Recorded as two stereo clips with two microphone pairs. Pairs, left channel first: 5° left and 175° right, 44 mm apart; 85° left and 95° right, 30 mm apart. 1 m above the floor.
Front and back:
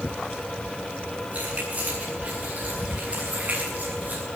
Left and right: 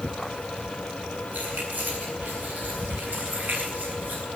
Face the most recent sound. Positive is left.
turn(degrees=-120)